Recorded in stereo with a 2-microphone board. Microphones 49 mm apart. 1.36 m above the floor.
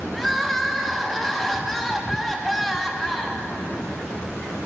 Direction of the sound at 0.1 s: 5° left (ahead or behind).